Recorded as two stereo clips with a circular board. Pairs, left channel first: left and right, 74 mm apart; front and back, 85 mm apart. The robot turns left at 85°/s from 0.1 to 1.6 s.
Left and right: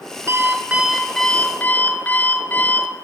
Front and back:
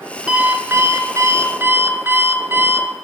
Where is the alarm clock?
100° right, 1.0 m; by 2.9 s 150° left, 1.0 m.